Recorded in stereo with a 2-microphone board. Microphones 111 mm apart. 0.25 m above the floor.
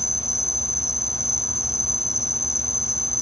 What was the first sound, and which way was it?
An insect, 30° left (ahead or behind).